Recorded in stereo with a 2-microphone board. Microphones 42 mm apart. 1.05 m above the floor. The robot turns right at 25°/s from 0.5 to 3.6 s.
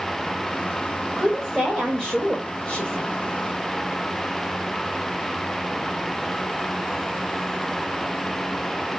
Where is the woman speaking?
15° right, 1.2 m; by 3.1 s 30° left, 1.2 m.